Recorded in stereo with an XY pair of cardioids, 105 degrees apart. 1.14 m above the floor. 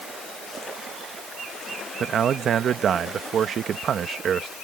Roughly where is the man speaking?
Ahead right.